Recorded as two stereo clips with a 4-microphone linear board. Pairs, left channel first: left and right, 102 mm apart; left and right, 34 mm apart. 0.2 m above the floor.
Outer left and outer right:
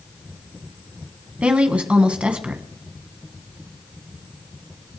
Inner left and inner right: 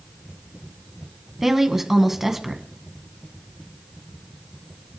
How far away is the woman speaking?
About 1.8 m.